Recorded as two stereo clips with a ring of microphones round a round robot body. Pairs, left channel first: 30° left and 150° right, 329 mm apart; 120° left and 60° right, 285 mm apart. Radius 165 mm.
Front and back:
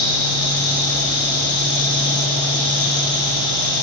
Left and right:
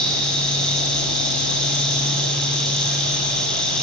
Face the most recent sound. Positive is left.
turn(degrees=35)